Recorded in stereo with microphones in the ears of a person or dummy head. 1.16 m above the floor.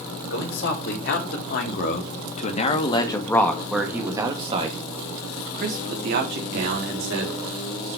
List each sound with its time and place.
0.3 s a man speaking: 65° left (ahead or behind), 2.5 m; by 8.0 s 70° right (ahead or behind), 3.5 m